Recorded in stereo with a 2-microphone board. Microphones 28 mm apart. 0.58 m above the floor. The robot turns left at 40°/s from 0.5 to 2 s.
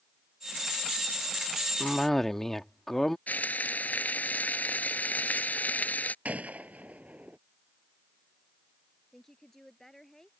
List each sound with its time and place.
1.8 s a cough: 15° left (ahead or behind); by 3.2 s 10° left (ahead or behind)
3.3 s frying: 75° left (ahead or behind)
6.2 s a gunshot: 60° right (ahead or behind)
9.1 s a woman speaking: 15° left (ahead or behind)